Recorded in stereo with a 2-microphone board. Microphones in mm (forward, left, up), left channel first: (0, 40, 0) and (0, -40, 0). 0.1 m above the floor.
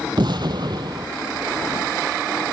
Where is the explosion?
65° right (ahead or behind), 1.0 m.